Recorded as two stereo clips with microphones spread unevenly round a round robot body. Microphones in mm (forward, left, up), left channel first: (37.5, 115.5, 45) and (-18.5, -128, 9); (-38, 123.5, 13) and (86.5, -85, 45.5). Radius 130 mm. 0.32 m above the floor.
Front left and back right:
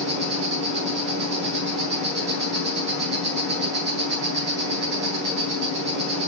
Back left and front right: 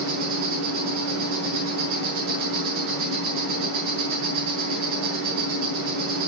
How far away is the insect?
About 8.5 m.